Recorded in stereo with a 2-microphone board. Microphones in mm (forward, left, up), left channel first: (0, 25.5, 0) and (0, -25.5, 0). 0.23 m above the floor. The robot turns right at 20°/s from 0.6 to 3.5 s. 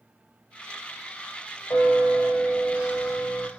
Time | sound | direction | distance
1.7 | a bell | 85° left | 6.5 m